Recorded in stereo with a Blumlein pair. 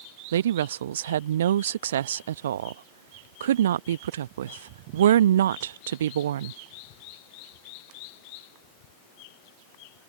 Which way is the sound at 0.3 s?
60° right.